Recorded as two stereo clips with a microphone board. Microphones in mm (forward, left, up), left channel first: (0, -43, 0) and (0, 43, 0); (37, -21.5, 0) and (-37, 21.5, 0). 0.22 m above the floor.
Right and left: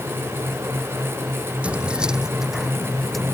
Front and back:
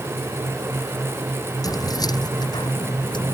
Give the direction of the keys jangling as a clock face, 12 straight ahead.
12 o'clock.